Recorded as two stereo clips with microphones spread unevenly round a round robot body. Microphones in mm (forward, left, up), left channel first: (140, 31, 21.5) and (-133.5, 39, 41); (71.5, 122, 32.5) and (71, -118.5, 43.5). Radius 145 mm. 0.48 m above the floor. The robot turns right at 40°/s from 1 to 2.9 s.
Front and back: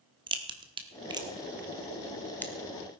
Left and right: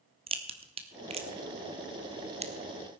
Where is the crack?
125° right, 1.3 m; by 2.5 s 65° right, 1.3 m.